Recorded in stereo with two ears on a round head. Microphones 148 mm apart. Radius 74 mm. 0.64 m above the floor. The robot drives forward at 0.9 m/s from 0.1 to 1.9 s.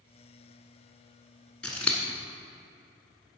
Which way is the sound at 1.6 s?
5° left (ahead or behind).